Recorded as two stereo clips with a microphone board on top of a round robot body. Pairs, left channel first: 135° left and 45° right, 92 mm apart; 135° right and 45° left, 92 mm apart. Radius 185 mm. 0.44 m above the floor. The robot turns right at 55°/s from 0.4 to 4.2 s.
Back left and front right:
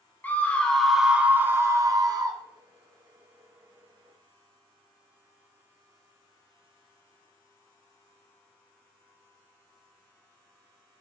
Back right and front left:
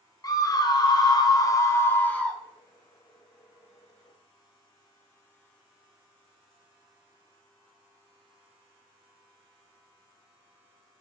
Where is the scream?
160° right, 1.0 m; by 2.4 s 50° right, 1.0 m.